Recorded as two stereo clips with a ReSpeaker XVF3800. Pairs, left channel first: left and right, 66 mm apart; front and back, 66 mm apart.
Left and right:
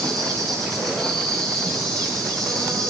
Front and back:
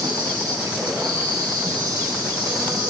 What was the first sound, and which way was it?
An insect, 170° left.